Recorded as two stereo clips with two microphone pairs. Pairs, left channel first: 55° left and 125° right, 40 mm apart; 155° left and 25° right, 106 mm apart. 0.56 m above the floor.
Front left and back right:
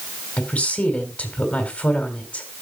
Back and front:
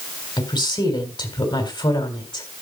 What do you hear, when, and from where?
0.4 s a woman speaking: 115° left, 3.5 m